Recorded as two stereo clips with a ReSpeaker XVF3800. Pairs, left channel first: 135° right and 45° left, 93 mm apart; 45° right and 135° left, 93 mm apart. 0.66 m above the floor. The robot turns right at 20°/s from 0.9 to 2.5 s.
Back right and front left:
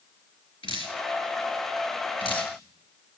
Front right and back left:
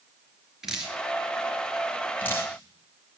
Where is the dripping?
140° right, 4 m; by 2.5 s 105° right, 4 m.